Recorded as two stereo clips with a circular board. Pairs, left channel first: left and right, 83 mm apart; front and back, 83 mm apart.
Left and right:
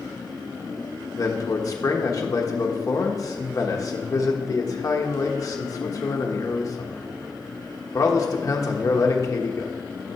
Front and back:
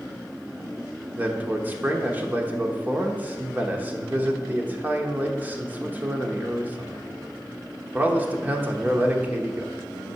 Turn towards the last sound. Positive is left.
turn(degrees=120)